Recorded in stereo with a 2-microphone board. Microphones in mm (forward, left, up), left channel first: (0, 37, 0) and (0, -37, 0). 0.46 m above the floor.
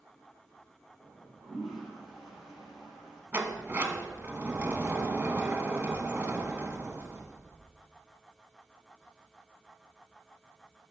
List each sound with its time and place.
1.0 s a toilet flushing: 5° right (ahead or behind), 2 m
3.3 s a sliding door: 30° right (ahead or behind), 0.8 m